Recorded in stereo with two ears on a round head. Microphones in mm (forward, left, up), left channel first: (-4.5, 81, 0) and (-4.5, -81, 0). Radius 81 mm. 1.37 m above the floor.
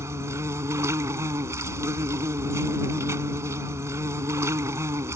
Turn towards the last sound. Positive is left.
turn(degrees=-15)  # may be behind; listen again after turning